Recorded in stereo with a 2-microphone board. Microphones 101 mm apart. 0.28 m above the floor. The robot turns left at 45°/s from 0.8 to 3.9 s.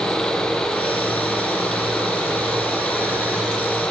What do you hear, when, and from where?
Only background noise.